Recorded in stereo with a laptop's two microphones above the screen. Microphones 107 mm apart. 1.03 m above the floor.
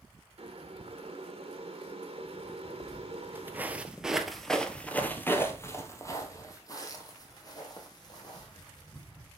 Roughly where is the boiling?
Right.